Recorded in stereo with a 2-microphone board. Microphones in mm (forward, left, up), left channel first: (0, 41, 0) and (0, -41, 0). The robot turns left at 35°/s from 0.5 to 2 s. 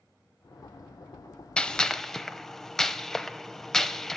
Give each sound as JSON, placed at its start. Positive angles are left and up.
{"t": 1.6, "sound": "a gunshot", "side_deg": 10, "distance_m": 0.6}